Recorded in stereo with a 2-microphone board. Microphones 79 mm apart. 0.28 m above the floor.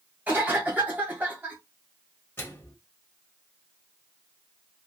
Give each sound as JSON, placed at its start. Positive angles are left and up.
{"t": 0.3, "sound": "a cough", "side_deg": -20, "distance_m": 1.7}
{"t": 2.4, "sound": "a microwave", "side_deg": 30, "distance_m": 1.0}